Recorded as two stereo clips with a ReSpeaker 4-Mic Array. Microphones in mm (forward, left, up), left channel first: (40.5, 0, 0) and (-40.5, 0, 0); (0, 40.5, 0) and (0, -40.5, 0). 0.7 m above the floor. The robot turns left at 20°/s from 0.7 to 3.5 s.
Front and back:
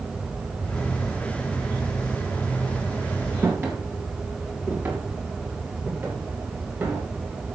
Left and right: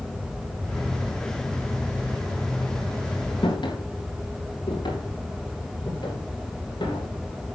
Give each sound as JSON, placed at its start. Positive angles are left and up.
{"t": 3.4, "sound": "footsteps", "azimuth_deg": 120, "distance_m": 6.5}